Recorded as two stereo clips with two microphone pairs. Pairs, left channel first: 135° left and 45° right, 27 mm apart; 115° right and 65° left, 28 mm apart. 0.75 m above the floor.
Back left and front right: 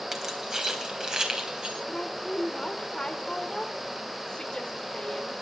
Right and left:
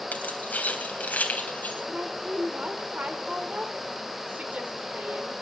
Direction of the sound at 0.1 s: 115° right.